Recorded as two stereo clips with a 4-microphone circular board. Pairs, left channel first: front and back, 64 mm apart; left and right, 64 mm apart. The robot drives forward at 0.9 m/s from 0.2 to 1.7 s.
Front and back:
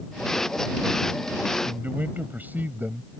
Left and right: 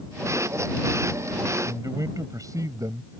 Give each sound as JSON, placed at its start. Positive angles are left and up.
{"t": 1.6, "sound": "a man speaking", "azimuth_deg": -120}